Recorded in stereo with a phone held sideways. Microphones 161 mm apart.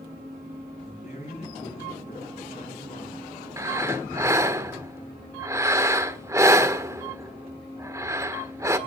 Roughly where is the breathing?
Centre.